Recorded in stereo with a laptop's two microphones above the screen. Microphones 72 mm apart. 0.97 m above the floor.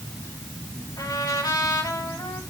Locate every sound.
1.0 s a trumpet: 70° left (ahead or behind), 6.5 m